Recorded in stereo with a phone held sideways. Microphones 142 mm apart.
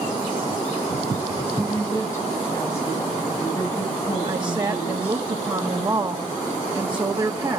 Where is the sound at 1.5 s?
20° left (ahead or behind), 9 m.